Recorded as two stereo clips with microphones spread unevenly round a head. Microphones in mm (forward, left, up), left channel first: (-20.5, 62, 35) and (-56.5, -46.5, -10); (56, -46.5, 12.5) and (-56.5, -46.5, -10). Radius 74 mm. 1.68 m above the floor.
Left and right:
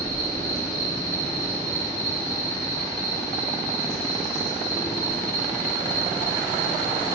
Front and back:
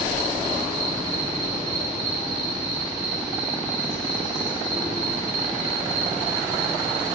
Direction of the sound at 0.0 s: 135° left.